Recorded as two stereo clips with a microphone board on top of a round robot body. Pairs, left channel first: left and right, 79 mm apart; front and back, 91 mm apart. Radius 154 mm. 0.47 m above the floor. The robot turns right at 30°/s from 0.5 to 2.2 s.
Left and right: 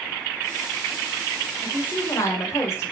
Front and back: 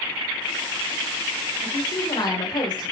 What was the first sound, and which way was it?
A woman speaking, 20° left.